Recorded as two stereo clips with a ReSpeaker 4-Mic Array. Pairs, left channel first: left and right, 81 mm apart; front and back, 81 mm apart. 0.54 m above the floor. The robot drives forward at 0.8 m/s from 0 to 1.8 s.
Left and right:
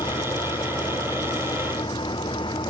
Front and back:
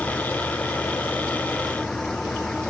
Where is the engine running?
75° left; by 2.7 s 80° left.